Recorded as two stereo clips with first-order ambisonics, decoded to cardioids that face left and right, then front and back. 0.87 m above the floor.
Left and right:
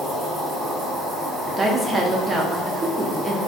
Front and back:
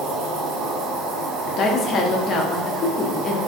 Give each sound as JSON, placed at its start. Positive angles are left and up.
{"t": 0.0, "sound": "an insect", "azimuth_deg": -175, "distance_m": 1.4}
{"t": 1.6, "sound": "a woman speaking", "azimuth_deg": -25, "distance_m": 0.5}